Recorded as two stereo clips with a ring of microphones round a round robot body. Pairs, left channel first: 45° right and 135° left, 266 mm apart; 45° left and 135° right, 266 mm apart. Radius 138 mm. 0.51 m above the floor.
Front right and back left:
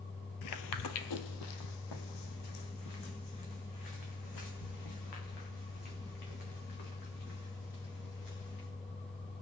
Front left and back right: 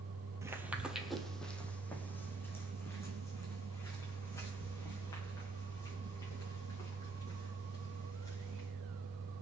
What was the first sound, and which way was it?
Footsteps, 55° right.